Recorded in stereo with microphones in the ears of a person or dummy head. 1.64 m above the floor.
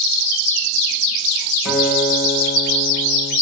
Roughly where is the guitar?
Centre.